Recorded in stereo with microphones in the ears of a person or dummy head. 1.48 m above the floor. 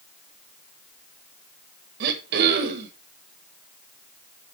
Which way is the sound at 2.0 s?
50° right (ahead or behind).